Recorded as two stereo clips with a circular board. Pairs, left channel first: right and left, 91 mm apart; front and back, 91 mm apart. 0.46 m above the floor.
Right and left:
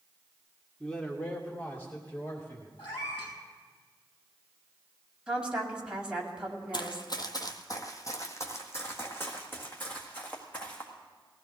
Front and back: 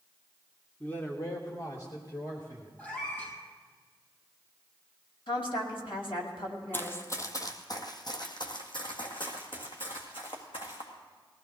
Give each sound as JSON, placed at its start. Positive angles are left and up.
{"t": 0.8, "sound": "a man speaking", "azimuth_deg": -20, "distance_m": 0.9}
{"t": 2.8, "sound": "a cat meowing", "azimuth_deg": -70, "distance_m": 5.0}
{"t": 5.3, "sound": "a woman speaking", "azimuth_deg": 10, "distance_m": 2.0}
{"t": 6.7, "sound": "running footsteps", "azimuth_deg": -65, "distance_m": 1.0}